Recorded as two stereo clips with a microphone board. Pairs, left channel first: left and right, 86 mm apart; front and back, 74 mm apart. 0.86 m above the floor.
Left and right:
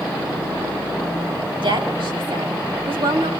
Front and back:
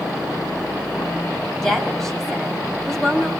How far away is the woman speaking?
About 6.5 m.